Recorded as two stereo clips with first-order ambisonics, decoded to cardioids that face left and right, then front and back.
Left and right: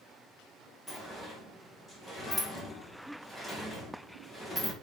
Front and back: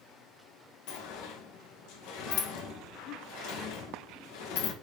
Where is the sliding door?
10° left, 1.8 m.